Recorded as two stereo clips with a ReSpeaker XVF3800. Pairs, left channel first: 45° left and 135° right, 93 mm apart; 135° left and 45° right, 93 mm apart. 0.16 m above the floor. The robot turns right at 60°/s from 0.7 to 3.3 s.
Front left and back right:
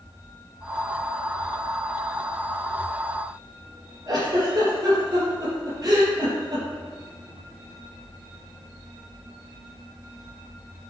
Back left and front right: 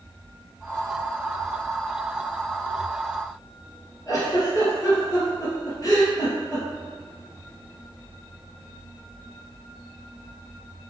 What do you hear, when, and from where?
4.1 s a giggle: straight behind, 3.5 m